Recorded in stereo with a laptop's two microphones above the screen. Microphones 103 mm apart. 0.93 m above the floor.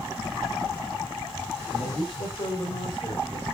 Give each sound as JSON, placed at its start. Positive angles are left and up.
{"t": 1.7, "sound": "a man speaking", "side_deg": 65, "distance_m": 5.5}